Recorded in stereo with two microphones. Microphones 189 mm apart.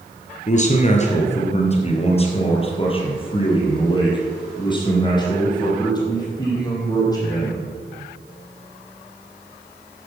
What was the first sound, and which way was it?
A man speaking, 40° left (ahead or behind).